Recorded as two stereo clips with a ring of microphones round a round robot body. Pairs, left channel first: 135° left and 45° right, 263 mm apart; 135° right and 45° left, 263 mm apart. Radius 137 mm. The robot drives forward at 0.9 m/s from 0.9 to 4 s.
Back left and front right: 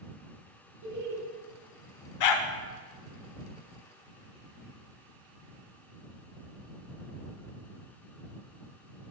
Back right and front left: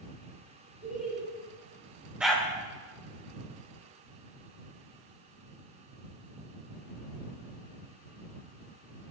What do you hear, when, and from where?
0.8 s laughter: 40° right, 1.6 m; by 1.2 s 50° right, 1.5 m
2.2 s a dog barking: 130° left, 0.6 m; by 2.5 s 145° left, 0.8 m